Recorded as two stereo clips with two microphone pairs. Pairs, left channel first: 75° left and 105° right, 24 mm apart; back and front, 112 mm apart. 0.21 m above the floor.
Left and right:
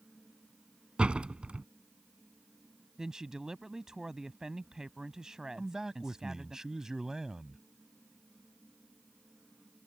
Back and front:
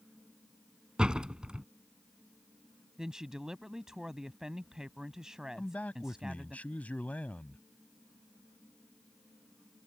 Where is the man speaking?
120° right.